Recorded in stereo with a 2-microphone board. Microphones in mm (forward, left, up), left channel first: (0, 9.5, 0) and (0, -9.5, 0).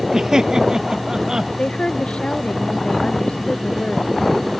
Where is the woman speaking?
80° left.